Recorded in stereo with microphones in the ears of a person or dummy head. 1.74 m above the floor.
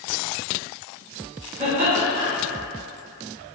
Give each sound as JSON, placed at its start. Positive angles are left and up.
{"t": 1.6, "sound": "laughter", "side_deg": -10, "distance_m": 1.6}